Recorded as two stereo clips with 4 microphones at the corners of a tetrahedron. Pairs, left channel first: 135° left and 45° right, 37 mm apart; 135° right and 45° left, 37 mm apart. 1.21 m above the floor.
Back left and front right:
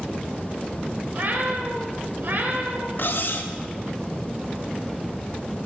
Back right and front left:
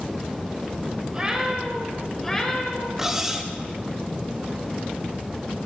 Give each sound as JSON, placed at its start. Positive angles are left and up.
{"t": 1.1, "sound": "a cat meowing", "azimuth_deg": -20, "distance_m": 1.8}
{"t": 3.0, "sound": "cutlery clinking", "azimuth_deg": 120, "distance_m": 0.9}